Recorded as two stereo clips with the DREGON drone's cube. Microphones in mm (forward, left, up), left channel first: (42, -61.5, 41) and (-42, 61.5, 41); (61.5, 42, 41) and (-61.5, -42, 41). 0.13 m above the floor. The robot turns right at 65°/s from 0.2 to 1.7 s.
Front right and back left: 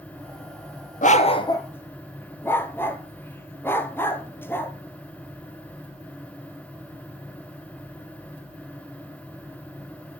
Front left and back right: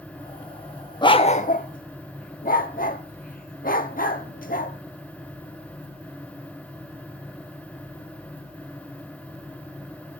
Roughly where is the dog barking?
Ahead right.